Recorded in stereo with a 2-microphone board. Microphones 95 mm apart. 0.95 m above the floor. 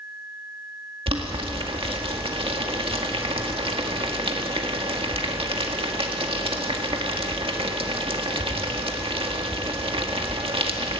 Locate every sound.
1.1 s boiling: 70° right (ahead or behind), 1.8 m